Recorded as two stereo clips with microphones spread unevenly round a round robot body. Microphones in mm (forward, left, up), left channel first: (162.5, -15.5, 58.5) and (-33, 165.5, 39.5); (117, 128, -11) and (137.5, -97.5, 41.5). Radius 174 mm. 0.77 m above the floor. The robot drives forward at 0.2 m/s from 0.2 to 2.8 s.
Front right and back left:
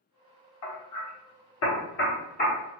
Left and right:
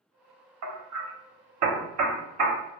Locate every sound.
0.6 s hammering: 75° right, 0.6 m; by 2.6 s 110° right, 0.6 m